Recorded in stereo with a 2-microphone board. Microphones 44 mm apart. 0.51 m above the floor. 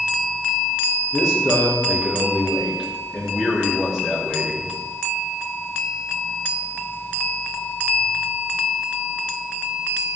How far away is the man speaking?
About 5.5 m.